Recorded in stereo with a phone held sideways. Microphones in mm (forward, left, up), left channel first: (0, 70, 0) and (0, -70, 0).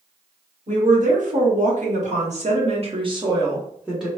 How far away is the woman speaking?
About 1.6 m.